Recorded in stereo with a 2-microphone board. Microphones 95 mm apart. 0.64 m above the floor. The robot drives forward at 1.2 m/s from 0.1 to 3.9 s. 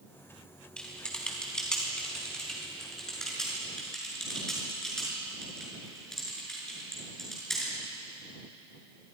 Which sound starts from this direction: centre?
Typing on a keyboard, at 0.8 s.